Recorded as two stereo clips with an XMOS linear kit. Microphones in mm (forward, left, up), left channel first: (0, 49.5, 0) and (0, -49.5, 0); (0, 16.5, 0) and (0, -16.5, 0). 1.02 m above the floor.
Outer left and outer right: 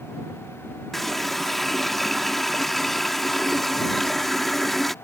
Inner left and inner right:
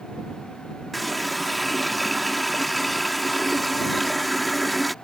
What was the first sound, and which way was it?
A running tap, centre (ahead or behind).